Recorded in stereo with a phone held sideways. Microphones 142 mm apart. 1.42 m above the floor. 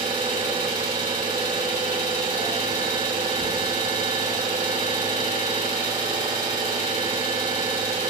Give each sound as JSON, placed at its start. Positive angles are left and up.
{"t": 0.0, "sound": "an engine running", "side_deg": -65, "distance_m": 2.5}